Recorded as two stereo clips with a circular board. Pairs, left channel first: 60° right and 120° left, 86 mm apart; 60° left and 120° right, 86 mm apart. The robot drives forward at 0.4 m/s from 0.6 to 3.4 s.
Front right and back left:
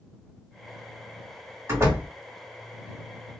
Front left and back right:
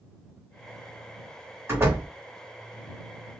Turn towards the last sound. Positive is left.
turn(degrees=180)